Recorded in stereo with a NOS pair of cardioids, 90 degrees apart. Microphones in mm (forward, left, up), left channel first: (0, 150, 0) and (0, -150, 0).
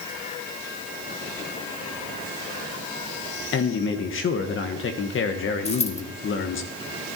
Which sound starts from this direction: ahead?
A dropped coin, at 5.7 s.